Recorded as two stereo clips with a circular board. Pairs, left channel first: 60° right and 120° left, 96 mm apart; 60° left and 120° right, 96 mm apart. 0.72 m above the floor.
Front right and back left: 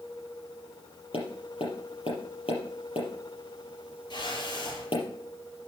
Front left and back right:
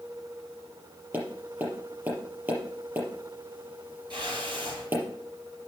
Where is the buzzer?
I don't hear a buzzer.